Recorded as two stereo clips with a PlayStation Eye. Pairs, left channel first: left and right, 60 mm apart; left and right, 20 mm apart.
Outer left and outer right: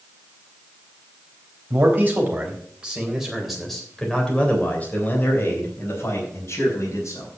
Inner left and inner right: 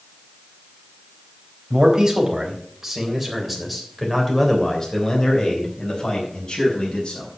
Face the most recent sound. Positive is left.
turn(degrees=60)  # may be behind; listen again after turning